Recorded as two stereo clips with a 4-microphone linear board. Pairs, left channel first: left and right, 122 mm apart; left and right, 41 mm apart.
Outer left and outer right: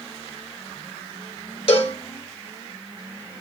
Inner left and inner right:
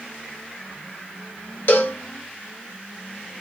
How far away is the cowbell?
About 0.7 m.